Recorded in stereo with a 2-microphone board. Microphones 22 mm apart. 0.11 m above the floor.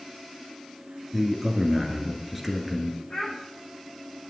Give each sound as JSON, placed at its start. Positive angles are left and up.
{"t": 1.1, "sound": "a man speaking", "side_deg": -5, "distance_m": 1.8}
{"t": 3.1, "sound": "a child speaking", "side_deg": 40, "distance_m": 4.5}